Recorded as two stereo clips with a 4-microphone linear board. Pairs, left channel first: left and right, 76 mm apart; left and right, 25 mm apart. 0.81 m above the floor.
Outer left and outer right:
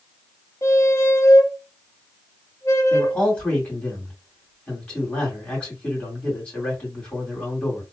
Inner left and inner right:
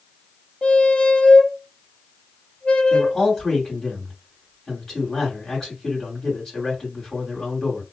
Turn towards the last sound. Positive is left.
turn(degrees=15)  # may be behind; listen again after turning